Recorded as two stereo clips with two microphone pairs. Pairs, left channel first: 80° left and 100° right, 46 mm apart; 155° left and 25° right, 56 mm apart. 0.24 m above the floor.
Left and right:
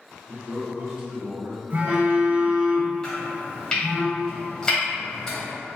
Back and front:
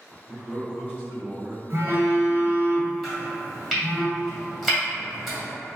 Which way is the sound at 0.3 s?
95° right.